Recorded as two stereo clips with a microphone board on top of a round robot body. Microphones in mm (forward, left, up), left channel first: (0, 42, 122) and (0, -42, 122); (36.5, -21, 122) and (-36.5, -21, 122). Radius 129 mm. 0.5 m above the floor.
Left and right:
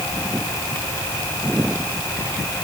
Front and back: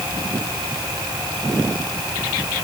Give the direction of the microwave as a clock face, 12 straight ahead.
I don't hear a microwave.